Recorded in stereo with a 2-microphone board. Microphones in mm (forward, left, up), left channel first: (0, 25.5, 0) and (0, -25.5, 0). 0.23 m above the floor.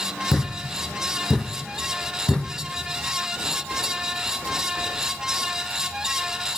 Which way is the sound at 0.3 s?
15° left (ahead or behind).